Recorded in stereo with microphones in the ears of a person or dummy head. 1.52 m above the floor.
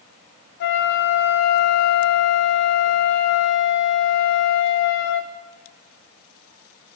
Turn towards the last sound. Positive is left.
turn(degrees=55)  # may be behind; listen again after turning